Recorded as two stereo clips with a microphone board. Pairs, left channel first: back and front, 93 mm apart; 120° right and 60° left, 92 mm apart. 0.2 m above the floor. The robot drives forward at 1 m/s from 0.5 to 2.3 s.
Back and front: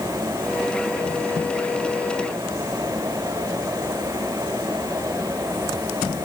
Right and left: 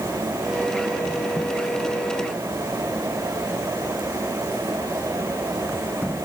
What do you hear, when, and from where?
Only background noise.